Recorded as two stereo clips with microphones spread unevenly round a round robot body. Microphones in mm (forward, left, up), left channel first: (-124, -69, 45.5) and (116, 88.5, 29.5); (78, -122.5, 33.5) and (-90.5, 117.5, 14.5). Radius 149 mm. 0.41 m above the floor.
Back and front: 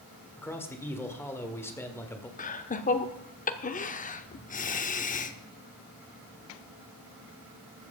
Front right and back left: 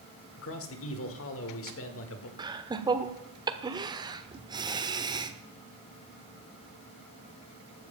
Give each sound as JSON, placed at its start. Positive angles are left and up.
{"t": 0.4, "sound": "a man speaking", "azimuth_deg": -65, "distance_m": 1.7}
{"t": 2.4, "sound": "laughter", "azimuth_deg": 175, "distance_m": 1.1}